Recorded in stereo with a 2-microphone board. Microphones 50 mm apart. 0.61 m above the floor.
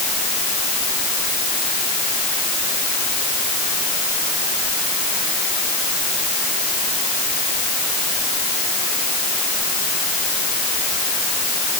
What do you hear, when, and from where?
Only background noise.